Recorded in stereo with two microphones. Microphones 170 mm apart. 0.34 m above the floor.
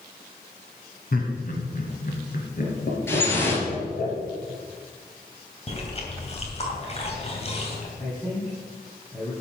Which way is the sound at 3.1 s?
15° left (ahead or behind).